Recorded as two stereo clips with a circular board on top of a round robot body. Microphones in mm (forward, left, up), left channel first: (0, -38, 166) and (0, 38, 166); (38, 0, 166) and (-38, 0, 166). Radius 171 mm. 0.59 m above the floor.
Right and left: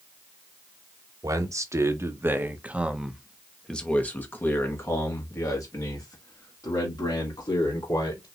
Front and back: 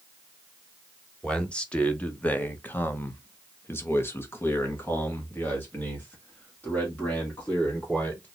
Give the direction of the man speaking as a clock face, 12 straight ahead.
9 o'clock.